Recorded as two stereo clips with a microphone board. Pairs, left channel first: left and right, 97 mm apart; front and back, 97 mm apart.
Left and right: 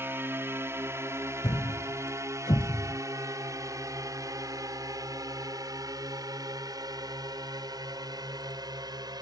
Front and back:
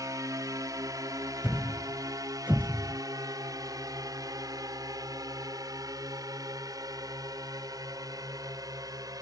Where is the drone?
145° right; by 9.2 s 130° right.